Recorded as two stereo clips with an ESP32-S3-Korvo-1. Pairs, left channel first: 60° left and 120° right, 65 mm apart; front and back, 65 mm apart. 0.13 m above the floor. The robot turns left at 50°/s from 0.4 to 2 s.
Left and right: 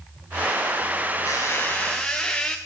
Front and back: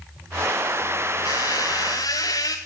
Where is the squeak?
20° left, 1.0 m; by 2.6 s 15° right, 1.0 m.